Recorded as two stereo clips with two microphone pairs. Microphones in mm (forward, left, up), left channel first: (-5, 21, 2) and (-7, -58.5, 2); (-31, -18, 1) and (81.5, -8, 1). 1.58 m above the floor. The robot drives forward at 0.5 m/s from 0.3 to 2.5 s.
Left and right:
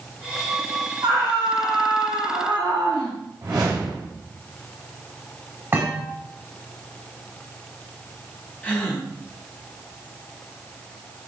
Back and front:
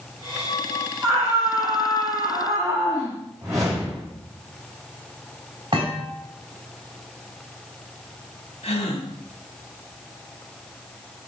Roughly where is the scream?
Ahead right.